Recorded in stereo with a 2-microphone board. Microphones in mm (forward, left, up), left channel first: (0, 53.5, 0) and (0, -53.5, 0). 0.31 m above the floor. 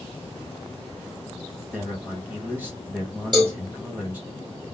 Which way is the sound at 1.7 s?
15° right (ahead or behind).